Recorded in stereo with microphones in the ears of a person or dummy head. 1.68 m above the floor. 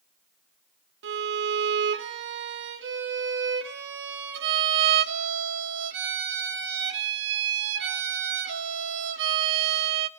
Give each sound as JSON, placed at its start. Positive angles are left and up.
{"t": 1.0, "sound": "a violin", "side_deg": -60, "distance_m": 2.0}